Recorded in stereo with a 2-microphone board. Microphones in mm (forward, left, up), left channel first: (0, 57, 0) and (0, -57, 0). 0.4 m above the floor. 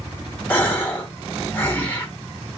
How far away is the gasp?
About 1.0 m.